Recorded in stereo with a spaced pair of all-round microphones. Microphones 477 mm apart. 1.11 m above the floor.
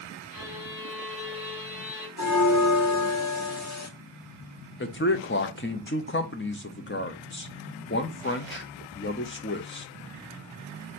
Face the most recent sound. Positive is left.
turn(degrees=25)  # may be behind; listen again after turning